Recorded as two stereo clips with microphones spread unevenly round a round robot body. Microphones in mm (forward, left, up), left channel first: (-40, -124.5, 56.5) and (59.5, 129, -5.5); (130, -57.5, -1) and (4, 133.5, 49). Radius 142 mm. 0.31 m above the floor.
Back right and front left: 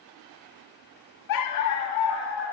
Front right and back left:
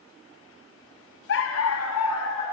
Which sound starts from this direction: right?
A dog barking, at 1.3 s.